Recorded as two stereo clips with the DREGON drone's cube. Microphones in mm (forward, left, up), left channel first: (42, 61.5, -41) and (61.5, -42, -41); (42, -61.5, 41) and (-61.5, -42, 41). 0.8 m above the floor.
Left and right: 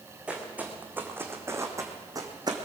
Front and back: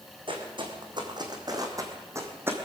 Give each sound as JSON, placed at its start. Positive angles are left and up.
{"t": 0.3, "sound": "footsteps", "azimuth_deg": -155, "distance_m": 2.5}